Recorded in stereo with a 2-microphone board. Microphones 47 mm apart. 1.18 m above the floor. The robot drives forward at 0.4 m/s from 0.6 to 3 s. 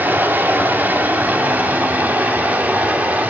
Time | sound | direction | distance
0.0 | running water | 35° right (ahead or behind) | 3 m